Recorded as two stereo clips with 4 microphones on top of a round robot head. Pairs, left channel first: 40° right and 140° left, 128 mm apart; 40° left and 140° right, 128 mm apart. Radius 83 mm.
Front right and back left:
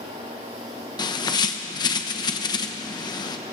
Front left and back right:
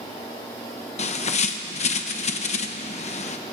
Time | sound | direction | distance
1.0 | a bird | 15° left | 1.0 m